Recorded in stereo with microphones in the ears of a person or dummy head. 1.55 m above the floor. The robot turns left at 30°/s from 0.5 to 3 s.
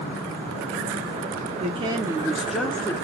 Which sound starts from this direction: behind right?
A woman speaking, at 1.6 s.